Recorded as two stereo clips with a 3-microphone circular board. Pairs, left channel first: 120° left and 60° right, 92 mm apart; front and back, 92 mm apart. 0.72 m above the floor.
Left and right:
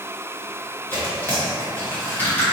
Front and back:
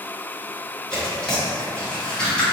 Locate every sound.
0.9 s tearing paper: 70° left, 1.2 m